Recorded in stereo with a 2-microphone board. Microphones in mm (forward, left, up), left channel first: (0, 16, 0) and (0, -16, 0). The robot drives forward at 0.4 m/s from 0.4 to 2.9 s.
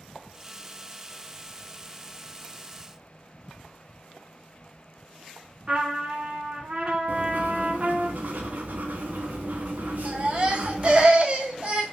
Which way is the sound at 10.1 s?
35° right (ahead or behind).